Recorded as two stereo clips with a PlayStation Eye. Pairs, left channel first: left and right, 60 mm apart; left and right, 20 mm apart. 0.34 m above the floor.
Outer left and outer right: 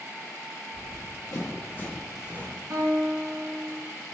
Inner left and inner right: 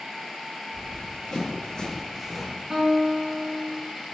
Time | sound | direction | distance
0.7 | running footsteps | 75° left (ahead or behind) | 1.8 m
2.7 | a guitar | 55° right (ahead or behind) | 1.2 m